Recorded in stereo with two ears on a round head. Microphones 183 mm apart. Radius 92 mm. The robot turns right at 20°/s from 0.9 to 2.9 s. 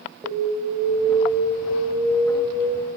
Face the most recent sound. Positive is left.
turn(degrees=25)